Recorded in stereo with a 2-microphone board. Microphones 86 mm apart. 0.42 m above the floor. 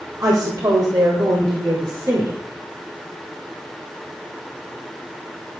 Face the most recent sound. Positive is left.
turn(degrees=-45)  # may be behind; listen again after turning